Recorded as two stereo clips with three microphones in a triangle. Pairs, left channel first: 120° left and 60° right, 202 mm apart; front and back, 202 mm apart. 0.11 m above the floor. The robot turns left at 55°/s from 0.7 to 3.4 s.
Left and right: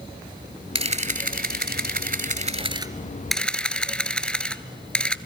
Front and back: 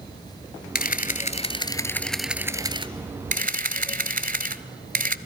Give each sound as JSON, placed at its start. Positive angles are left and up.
{"t": 0.8, "sound": "a camera shutter", "azimuth_deg": -10, "distance_m": 0.7}